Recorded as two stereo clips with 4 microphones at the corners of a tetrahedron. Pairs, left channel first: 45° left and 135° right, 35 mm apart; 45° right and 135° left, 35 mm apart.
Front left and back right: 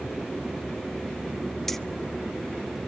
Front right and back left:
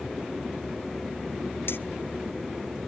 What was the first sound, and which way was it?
Keys jangling, 40° right.